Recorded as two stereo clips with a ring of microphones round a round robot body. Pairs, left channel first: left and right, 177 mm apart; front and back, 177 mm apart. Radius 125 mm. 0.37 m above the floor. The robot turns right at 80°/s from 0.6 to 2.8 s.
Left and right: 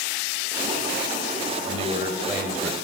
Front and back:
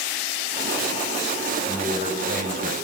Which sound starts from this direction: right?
A man speaking, at 1.6 s.